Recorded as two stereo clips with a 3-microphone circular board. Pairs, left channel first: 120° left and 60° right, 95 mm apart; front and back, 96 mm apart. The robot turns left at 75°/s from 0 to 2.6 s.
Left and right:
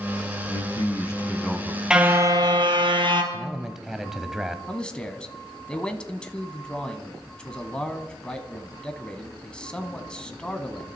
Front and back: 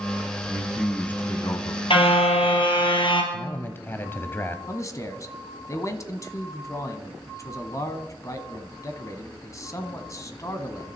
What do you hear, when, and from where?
0.5 s a man speaking: 110° left, 1.5 m; by 1.8 s 10° left, 1.5 m
1.9 s a car horn: 20° left, 2.5 m; by 3.2 s 30° right, 2.5 m
3.3 s a man speaking: 20° left, 1.1 m
4.7 s a man speaking: 45° left, 1.5 m